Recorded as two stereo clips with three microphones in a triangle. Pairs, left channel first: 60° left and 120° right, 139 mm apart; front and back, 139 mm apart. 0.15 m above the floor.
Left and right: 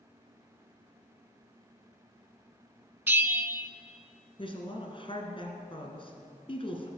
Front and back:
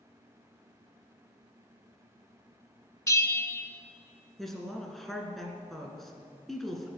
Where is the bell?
50° right, 0.5 m.